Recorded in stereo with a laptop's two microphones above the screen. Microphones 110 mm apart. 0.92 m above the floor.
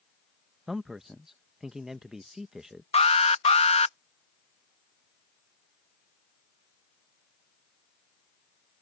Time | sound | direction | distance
0.7 | a man speaking | 5° right (ahead or behind) | ?
2.9 | an alarm | 85° left | ?